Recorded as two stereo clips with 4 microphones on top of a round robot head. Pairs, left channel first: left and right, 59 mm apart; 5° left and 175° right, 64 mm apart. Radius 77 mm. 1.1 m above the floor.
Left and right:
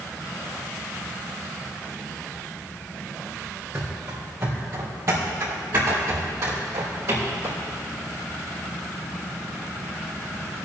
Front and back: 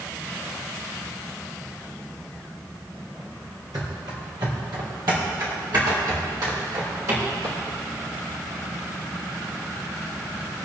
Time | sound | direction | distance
3.7 | running footsteps | 140° right | 1.8 m